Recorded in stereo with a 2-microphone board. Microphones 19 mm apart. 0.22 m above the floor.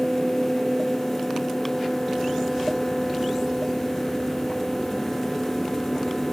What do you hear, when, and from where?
Only background noise.